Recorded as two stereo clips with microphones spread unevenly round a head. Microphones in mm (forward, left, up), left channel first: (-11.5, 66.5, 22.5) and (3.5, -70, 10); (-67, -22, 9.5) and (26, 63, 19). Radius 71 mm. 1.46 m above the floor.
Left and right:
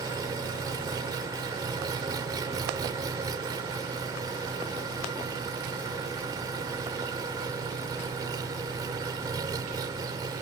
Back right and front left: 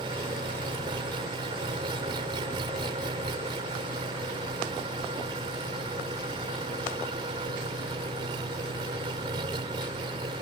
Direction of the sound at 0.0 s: 15° right.